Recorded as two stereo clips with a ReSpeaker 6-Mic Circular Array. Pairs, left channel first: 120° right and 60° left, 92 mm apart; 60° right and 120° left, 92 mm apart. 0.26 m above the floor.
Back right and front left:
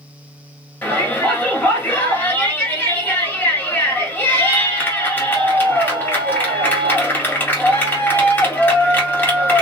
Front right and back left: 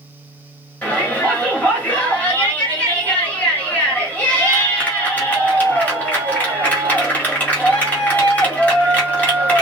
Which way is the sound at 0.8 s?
100° right.